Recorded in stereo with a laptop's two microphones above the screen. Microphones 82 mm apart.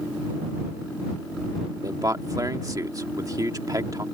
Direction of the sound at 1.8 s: 50° right (ahead or behind).